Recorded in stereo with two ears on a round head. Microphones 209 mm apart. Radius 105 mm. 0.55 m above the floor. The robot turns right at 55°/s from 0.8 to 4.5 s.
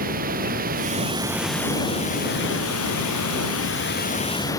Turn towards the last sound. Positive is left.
turn(degrees=165)